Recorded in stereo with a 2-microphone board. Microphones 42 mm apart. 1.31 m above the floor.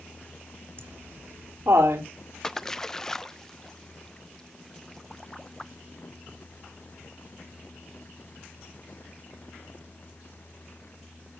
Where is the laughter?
80° right, 3 m.